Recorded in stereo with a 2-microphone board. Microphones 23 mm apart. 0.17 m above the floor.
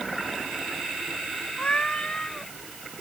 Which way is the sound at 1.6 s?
45° left (ahead or behind).